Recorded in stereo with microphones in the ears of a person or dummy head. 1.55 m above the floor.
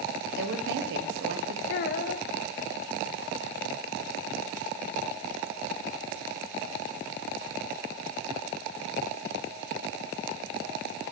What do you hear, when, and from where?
0.4 s a woman speaking: 65° right (ahead or behind), 1.0 m
1.7 s a child speaking: 50° left (ahead or behind), 0.7 m